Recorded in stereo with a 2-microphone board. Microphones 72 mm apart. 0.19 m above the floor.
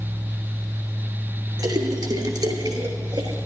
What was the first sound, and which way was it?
A splash, 70° right (ahead or behind).